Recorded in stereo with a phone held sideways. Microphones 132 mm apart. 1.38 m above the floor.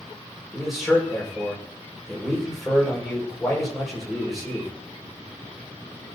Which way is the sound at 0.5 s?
Centre (ahead or behind).